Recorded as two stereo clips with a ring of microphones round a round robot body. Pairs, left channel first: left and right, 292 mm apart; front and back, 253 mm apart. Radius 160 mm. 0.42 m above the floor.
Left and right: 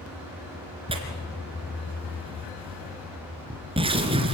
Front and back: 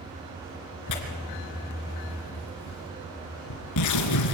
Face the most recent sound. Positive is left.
turn(degrees=-15)